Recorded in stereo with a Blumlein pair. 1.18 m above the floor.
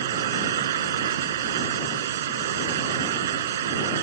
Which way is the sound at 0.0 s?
60° right.